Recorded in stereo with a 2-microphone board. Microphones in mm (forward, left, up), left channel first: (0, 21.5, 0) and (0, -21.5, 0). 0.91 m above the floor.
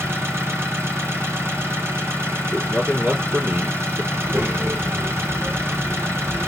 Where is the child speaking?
55° right (ahead or behind), 2.5 m.